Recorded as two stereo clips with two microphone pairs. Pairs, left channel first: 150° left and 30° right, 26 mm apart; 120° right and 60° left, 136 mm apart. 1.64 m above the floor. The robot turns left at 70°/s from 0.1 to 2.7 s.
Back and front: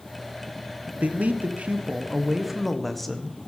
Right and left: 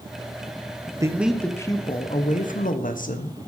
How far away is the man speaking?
About 1.3 m.